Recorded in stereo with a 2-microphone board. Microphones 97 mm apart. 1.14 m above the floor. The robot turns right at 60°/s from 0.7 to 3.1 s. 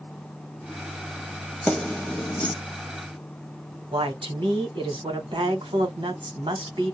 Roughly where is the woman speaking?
Right.